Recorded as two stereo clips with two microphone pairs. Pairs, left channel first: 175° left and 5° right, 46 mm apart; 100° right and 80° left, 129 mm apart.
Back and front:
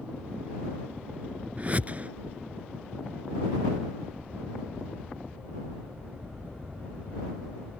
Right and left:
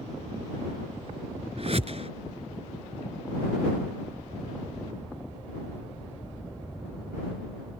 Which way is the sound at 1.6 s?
50° left.